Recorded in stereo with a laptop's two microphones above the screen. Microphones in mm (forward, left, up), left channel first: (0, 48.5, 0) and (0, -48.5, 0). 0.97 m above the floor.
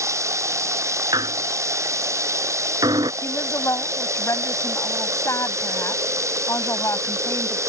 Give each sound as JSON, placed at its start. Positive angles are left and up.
{"t": 0.0, "sound": "running water", "side_deg": -30}
{"t": 1.1, "sound": "a squeak", "side_deg": -45}
{"t": 3.2, "sound": "a woman speaking", "side_deg": 30}